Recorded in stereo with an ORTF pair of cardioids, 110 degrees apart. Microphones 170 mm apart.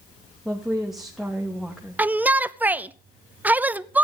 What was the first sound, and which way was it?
A woman speaking, straight ahead.